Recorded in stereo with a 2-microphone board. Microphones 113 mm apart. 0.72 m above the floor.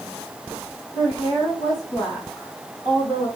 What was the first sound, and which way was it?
A woman speaking, 40° left (ahead or behind).